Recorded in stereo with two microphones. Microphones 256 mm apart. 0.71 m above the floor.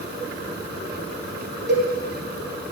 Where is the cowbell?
45° right (ahead or behind), 1.5 m.